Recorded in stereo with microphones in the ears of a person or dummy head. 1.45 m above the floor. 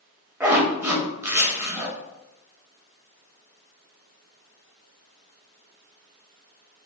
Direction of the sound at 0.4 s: 15° right (ahead or behind).